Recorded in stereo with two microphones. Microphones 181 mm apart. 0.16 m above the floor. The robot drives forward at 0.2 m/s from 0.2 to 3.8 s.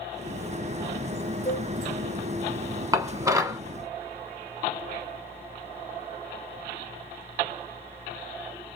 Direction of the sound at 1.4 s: 15° right (ahead or behind).